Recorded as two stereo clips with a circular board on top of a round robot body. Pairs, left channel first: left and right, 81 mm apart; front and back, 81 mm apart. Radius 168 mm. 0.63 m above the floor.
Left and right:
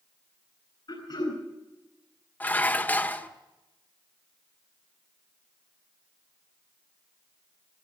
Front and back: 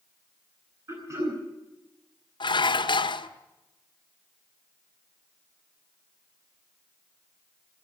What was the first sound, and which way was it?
Throat clearing, 125° left.